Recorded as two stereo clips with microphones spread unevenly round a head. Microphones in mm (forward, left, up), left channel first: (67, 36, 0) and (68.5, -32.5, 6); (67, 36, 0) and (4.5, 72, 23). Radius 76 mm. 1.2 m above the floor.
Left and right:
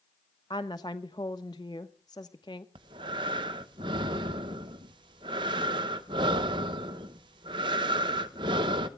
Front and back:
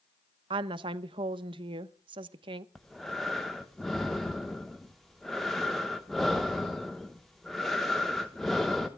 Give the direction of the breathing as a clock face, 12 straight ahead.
4 o'clock.